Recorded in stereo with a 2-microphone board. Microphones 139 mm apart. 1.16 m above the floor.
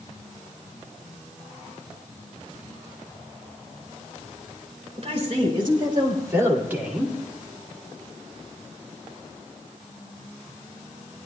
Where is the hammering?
I don't hear hammering.